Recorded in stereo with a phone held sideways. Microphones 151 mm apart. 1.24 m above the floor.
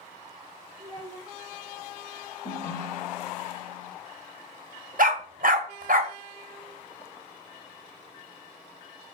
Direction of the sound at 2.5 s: 60° left (ahead or behind).